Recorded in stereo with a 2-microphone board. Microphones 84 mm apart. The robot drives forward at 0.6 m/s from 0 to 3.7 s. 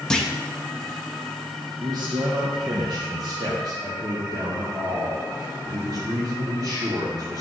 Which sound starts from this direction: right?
A man speaking, at 1.8 s.